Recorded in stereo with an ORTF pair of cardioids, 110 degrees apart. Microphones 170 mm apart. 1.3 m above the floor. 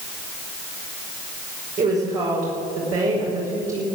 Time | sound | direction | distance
1.8 | a woman speaking | 45° right | 5.5 m